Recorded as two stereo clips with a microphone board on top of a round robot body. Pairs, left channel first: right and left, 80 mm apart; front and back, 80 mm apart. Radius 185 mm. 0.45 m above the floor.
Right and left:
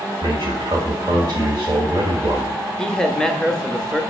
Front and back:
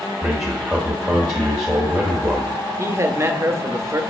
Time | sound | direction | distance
0.2 | a man speaking | 95° left | 1.2 m
2.8 | a man speaking | 165° right | 0.8 m